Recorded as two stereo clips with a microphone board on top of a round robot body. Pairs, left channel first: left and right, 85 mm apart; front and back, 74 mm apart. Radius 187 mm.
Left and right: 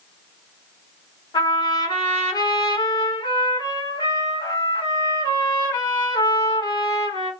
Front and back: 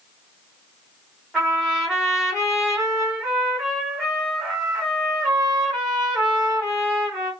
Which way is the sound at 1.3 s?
95° left.